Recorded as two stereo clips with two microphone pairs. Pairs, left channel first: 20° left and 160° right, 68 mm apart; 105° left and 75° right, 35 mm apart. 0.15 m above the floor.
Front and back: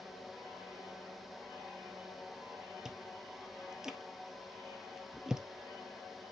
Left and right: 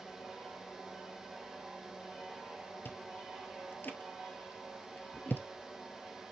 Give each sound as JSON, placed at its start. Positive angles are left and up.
{"t": 2.9, "sound": "chewing", "azimuth_deg": 115, "distance_m": 1.0}